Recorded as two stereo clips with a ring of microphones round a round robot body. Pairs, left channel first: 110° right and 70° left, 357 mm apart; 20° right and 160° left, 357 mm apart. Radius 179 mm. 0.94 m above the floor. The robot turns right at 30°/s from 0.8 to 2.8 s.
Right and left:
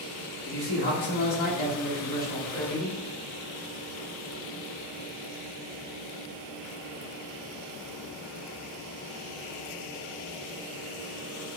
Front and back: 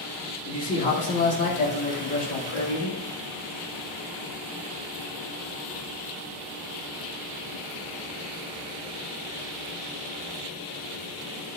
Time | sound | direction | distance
0.5 | a man speaking | 90° right | 2 m